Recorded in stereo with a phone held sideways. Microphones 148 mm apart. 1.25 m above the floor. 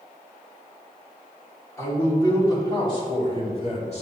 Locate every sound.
1.8 s a man speaking: 20° left (ahead or behind), 3 m; by 4.0 s 45° left (ahead or behind), 2.5 m